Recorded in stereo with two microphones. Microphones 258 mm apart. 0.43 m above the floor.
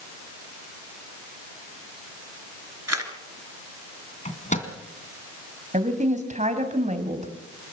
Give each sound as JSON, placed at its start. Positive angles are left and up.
{"t": 2.9, "sound": "a camera shutter", "side_deg": -80, "distance_m": 2.5}
{"t": 4.2, "sound": "a microwave", "side_deg": 30, "distance_m": 2.5}
{"t": 5.7, "sound": "a woman speaking", "side_deg": -30, "distance_m": 3.0}